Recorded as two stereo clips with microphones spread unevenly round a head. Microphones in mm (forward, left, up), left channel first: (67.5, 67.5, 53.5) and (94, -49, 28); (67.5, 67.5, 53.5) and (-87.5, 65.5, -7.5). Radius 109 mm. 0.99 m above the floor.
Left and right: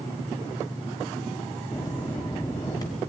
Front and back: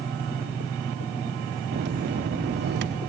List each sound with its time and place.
1.7 s a bell: 175° left, 1.0 m